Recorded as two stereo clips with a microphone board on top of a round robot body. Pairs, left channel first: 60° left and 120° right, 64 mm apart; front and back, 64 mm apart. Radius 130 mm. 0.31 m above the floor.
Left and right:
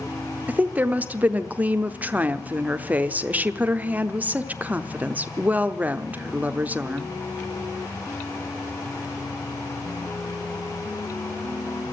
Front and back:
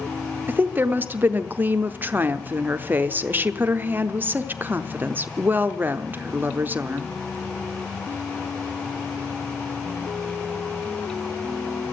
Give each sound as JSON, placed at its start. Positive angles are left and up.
{"t": 0.5, "sound": "a woman speaking", "azimuth_deg": -160, "distance_m": 1.0}